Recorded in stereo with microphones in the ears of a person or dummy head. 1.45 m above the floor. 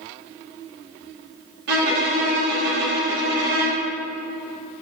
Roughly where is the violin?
Right.